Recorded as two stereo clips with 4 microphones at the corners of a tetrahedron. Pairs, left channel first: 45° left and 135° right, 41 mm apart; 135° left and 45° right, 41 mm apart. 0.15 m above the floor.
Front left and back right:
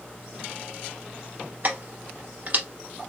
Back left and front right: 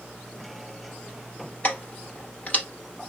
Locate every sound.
1.6 s keys jangling: 175° right, 1.5 m